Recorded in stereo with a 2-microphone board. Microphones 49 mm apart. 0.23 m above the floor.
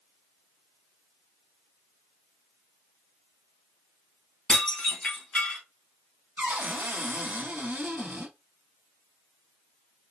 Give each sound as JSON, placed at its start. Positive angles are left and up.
{"t": 4.5, "sound": "dishes clattering", "side_deg": 15, "distance_m": 1.4}
{"t": 6.4, "sound": "a cupboard door", "side_deg": -40, "distance_m": 0.9}